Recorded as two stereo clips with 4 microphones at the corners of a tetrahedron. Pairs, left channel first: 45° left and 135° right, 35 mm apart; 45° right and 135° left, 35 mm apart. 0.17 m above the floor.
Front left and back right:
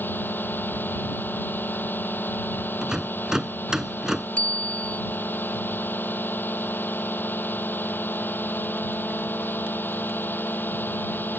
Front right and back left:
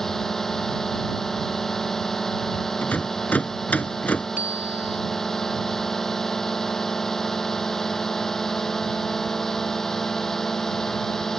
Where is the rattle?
65° right.